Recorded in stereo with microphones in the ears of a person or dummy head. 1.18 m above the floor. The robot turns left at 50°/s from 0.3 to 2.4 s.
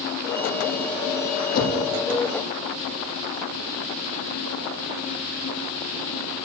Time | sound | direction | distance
1.5 | a whoosh | 50° left (ahead or behind) | 9 m